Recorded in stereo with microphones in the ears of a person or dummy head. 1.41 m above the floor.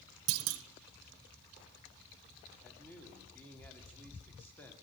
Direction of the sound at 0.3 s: 70° right (ahead or behind).